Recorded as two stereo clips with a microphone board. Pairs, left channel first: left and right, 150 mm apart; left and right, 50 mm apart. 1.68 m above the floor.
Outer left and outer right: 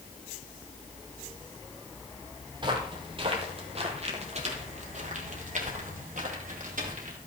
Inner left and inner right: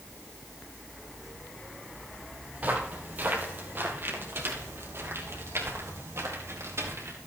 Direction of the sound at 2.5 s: 30° right (ahead or behind).